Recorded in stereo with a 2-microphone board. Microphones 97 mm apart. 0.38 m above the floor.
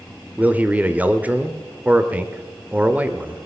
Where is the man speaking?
20° right (ahead or behind), 0.9 m.